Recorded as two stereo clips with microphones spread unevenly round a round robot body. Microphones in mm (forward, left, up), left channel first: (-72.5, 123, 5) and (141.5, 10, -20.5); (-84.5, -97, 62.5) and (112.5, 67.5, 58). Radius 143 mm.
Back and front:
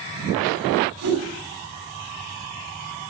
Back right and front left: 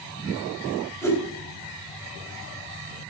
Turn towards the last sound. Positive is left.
turn(degrees=-60)